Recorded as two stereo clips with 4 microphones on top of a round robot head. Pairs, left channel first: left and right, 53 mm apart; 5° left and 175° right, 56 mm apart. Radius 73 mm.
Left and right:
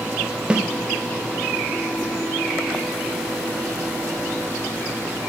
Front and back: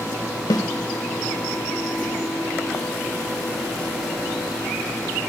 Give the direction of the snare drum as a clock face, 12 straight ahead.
1 o'clock.